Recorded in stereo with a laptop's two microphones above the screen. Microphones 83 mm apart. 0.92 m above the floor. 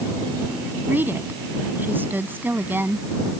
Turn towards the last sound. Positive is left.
turn(degrees=-25)  # may be behind; listen again after turning